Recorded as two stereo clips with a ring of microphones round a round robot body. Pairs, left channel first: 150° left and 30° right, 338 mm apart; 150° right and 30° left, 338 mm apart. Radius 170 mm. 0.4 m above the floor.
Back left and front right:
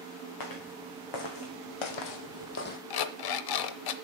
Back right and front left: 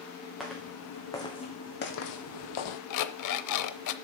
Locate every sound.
0.4 s footsteps: 120° left, 2.5 m; by 2.8 s 140° right, 1.0 m
2.9 s an alarm clock: 175° left, 0.7 m